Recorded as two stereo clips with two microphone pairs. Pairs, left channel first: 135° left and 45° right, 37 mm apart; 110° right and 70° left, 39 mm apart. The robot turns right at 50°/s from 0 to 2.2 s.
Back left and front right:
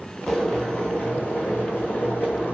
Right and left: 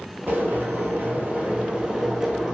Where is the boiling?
55° left, 1.0 m; by 2.5 s 150° left, 1.0 m.